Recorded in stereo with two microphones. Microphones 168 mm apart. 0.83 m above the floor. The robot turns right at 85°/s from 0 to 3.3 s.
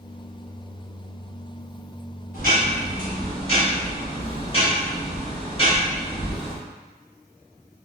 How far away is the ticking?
About 1.4 m.